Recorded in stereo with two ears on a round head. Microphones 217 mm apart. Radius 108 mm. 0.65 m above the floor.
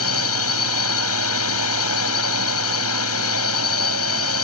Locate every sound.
0.0 s a drone: 65° left (ahead or behind)